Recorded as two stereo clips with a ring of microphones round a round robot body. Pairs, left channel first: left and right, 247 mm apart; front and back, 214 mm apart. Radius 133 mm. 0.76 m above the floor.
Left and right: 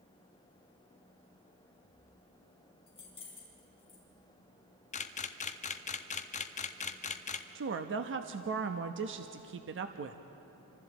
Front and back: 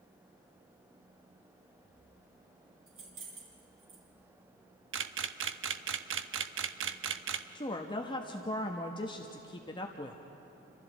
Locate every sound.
2.9 s keys jangling: 160° left, 4.5 m
4.9 s a camera shutter: 155° left, 0.8 m
7.5 s a woman speaking: 65° right, 0.9 m